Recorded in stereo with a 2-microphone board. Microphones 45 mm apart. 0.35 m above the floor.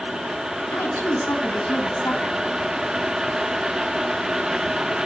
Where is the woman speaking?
65° left (ahead or behind), 2.5 m.